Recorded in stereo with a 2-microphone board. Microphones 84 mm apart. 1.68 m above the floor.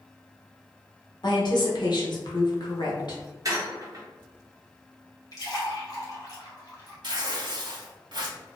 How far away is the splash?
About 1.1 m.